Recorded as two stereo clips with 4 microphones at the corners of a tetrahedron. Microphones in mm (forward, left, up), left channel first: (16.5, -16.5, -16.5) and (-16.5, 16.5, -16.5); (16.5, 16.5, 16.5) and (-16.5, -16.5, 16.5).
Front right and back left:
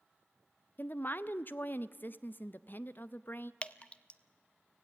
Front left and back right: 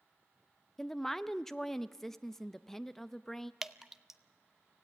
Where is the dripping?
65° right, 0.6 m.